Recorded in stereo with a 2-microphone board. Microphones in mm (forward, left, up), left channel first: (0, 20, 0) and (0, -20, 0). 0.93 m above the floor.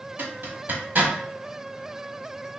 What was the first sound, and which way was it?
A zipper, 55° right (ahead or behind).